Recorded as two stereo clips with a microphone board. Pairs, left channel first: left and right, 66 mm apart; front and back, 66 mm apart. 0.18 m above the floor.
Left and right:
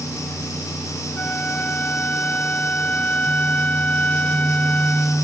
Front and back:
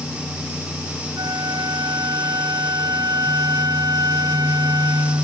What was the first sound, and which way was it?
A flute, 160° left.